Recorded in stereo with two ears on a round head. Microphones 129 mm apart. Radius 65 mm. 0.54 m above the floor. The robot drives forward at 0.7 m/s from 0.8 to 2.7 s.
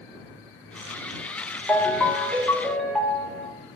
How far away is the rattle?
I don't hear a rattle.